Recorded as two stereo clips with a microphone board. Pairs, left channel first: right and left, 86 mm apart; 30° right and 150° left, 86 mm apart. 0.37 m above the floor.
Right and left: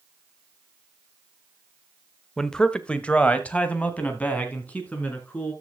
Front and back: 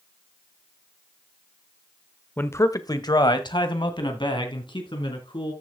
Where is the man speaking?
15° right, 0.8 m.